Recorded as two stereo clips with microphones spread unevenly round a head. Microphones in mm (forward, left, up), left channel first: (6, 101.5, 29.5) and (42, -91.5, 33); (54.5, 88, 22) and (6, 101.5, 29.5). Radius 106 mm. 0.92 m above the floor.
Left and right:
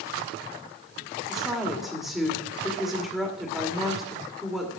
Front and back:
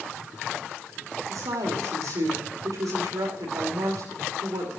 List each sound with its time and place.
1.3 s a woman speaking: 170° right, 2.5 m